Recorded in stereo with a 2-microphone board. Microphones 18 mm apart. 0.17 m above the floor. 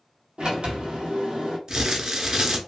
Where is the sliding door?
65° right (ahead or behind), 1.0 m.